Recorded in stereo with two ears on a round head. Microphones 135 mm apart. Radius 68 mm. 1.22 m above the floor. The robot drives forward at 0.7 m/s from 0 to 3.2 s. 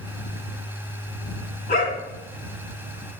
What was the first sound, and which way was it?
A dog barking, 50° left (ahead or behind).